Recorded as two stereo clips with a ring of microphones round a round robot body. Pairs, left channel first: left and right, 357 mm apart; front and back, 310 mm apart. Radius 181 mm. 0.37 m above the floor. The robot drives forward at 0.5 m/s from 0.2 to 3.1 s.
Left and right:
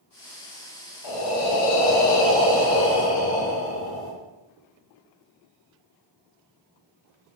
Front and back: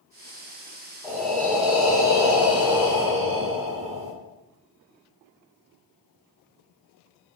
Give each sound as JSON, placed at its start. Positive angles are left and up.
{"t": 1.0, "sound": "breathing", "azimuth_deg": 90, "distance_m": 2.5}